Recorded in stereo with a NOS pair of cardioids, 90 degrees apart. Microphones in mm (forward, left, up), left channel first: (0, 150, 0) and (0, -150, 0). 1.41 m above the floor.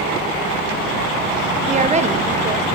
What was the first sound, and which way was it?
A woman speaking, 25° right.